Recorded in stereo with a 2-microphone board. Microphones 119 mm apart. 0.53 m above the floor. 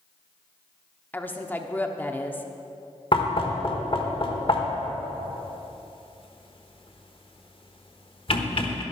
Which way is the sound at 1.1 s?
15° left (ahead or behind).